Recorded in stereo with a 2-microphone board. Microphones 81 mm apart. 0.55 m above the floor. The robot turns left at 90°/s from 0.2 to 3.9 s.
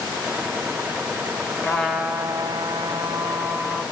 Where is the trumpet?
25° left, 1.6 m; by 3.8 s 170° right, 1.6 m.